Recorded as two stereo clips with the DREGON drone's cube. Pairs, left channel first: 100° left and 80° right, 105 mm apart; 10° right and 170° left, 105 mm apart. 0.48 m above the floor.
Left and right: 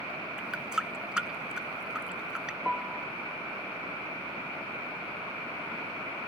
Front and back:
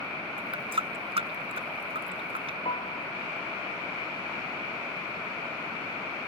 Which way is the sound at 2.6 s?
5° left.